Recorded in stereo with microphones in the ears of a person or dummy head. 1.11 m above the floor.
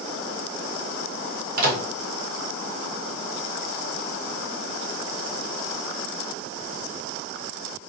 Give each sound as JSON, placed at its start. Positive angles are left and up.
{"t": 1.6, "sound": "a microwave", "side_deg": -45, "distance_m": 0.7}